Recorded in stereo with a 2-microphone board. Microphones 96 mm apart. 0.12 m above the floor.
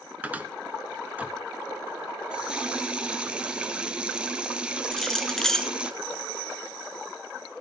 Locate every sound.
0.2 s a cupboard door: 15° right (ahead or behind), 1.4 m
2.3 s a running tap: 10° right (ahead or behind), 1.2 m
4.9 s keys jangling: 5° left (ahead or behind), 0.8 m